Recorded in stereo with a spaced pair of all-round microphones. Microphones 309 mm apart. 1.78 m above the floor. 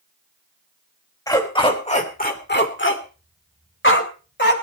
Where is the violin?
No violin in this recording.